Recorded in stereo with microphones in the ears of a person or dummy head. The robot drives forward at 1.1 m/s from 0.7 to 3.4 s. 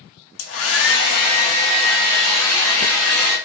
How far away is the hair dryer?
About 0.9 m.